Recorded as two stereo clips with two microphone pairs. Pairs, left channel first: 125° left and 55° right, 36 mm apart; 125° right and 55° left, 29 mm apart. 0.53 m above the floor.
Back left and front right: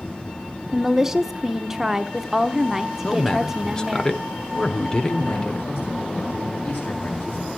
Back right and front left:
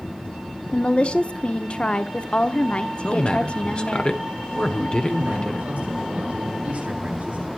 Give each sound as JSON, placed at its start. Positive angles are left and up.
{"t": 0.7, "sound": "a woman speaking", "azimuth_deg": -130, "distance_m": 0.9}
{"t": 3.0, "sound": "a man speaking", "azimuth_deg": -170, "distance_m": 1.6}
{"t": 5.0, "sound": "a man speaking", "azimuth_deg": 90, "distance_m": 9.5}